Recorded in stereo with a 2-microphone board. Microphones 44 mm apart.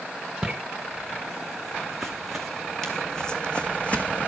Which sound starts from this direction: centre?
Footsteps, at 0.4 s.